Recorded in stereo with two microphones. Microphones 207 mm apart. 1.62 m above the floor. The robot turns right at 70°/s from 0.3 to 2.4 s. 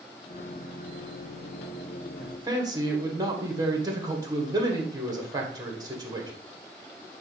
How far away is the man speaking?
About 1.6 m.